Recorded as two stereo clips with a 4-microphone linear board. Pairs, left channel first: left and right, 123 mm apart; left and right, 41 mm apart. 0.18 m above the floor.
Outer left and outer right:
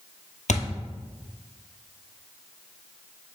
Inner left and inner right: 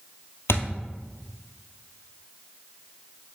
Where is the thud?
80° left, 1.2 m.